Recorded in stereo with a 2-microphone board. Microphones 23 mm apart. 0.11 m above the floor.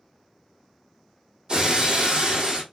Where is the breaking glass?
30° right (ahead or behind), 2.0 m.